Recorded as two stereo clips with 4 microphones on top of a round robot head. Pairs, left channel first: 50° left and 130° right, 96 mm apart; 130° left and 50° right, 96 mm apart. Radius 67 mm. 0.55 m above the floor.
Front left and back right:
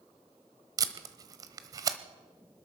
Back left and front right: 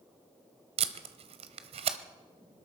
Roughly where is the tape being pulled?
Right.